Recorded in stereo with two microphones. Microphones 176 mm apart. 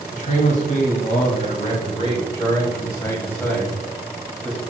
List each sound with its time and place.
0.1 s a man speaking: 50° left (ahead or behind), 2.5 m; by 4.6 s centre (ahead or behind), 2.5 m